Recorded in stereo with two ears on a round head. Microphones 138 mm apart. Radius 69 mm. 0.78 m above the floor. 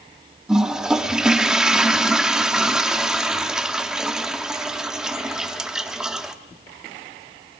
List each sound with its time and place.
0.5 s a toilet flushing: 5° right (ahead or behind), 1.0 m